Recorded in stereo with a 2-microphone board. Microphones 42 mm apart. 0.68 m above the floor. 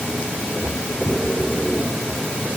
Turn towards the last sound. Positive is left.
No sound to turn to.